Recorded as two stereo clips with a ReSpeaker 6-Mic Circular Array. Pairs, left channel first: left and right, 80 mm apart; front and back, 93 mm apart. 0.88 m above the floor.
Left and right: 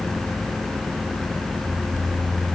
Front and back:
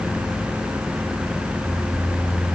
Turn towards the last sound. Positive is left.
No sound to turn to.